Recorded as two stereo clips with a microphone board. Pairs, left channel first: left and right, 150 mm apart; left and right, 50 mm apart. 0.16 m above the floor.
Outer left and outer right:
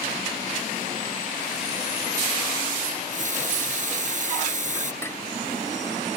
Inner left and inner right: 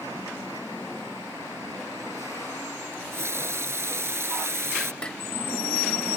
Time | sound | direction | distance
2.9 | a running tap | 60° right (ahead or behind) | ?
5.0 | dishes clattering | 15° left (ahead or behind) | ?